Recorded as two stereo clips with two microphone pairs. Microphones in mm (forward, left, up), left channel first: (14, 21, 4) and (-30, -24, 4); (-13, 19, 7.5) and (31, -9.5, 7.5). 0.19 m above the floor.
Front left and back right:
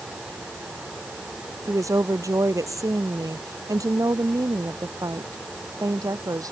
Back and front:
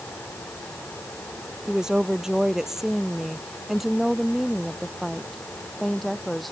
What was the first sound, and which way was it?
A woman speaking, 110° right.